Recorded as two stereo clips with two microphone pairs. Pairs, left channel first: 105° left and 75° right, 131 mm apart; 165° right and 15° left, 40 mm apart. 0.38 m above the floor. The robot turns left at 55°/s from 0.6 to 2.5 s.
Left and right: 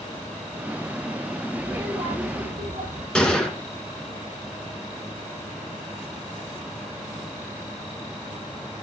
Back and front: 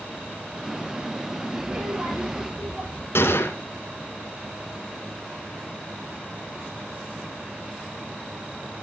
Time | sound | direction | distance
1.6 | a child speaking | 5° right | 7.5 m
3.1 | a gunshot | 170° right | 2 m